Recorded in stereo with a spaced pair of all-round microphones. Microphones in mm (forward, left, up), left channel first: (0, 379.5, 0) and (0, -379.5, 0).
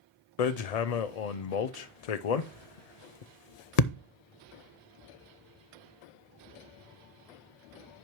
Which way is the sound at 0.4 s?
60° left (ahead or behind).